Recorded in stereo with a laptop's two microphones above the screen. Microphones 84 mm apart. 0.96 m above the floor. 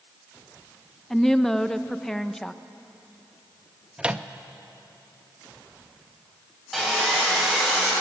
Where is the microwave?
15° right (ahead or behind), 0.7 m.